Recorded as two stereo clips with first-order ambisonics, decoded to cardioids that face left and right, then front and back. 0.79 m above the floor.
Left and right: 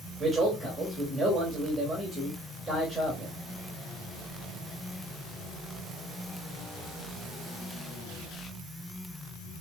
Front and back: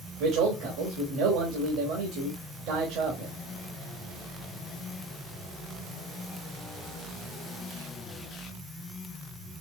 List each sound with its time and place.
0.2 s a man speaking: 175° right, 1.3 m